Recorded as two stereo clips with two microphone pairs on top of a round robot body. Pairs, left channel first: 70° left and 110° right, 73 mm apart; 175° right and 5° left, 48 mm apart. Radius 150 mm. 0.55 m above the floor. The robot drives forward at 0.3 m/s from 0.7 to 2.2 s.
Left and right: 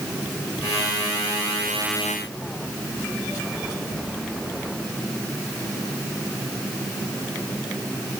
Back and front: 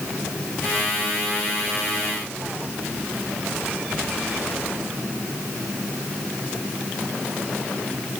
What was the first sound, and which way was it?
Only background noise.